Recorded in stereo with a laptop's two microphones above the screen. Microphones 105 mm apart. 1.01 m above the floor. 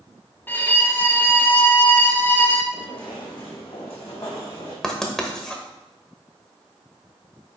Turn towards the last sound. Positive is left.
turn(degrees=5)  # may be behind; listen again after turning